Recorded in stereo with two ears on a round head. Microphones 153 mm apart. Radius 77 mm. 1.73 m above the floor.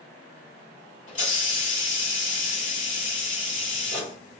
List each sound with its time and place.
1.1 s a hiss: 45° left (ahead or behind), 1.8 m